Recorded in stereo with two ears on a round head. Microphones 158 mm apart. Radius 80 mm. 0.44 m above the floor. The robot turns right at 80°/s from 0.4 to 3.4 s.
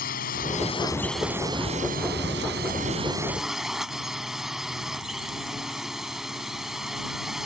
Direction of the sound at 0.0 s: 120° left.